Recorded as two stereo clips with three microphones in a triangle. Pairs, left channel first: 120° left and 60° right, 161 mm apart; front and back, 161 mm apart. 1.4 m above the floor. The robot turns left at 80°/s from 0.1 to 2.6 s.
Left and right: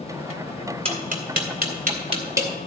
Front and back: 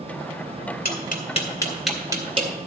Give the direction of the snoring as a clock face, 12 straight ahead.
I don't hear snoring.